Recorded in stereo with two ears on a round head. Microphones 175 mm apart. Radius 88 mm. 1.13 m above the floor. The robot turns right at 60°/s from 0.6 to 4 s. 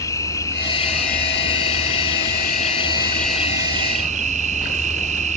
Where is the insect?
15° left; by 5.4 s 140° right.